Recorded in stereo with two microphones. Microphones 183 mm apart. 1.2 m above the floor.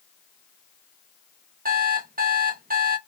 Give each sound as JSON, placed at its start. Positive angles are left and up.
{"t": 1.6, "sound": "an alarm clock", "side_deg": -50, "distance_m": 0.7}